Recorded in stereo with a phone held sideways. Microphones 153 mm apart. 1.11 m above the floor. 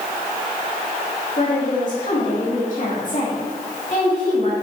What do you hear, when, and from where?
1.4 s a woman speaking: 55° left (ahead or behind), 2.5 m